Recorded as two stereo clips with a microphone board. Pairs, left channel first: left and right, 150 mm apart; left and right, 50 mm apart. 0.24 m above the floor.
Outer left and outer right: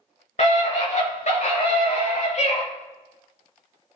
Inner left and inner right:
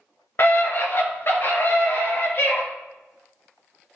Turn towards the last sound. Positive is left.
turn(degrees=50)  # may be behind; listen again after turning